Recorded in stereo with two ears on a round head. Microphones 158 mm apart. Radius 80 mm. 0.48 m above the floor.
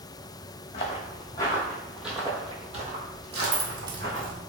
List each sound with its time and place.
0.7 s footsteps: 35° left (ahead or behind), 1.4 m; by 4.3 s 75° right (ahead or behind), 1.6 m
3.3 s keys jangling: 25° right (ahead or behind), 0.6 m